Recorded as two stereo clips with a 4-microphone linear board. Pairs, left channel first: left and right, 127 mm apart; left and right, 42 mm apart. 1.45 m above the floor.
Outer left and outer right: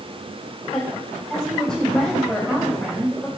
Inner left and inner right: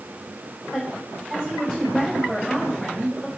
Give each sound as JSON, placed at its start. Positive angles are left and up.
{"t": 0.7, "sound": "a woman speaking", "side_deg": 5, "distance_m": 5.0}